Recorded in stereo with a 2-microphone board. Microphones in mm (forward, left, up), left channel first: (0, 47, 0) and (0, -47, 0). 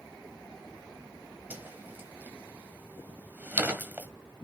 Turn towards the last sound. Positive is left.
turn(degrees=-20)  # may be behind; listen again after turning